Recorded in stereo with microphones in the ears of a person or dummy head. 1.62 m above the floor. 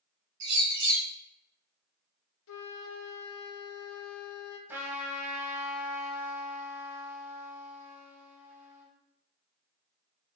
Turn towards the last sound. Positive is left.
turn(degrees=-15)  # may be behind; listen again after turning